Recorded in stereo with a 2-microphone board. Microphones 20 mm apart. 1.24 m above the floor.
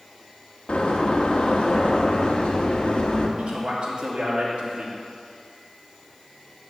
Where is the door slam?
75° left (ahead or behind), 1.1 m.